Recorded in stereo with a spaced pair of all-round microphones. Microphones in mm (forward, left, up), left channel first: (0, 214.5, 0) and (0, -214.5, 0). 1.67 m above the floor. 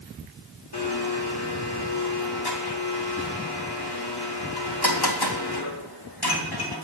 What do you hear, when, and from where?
0.7 s a blender: 60° left (ahead or behind), 3.5 m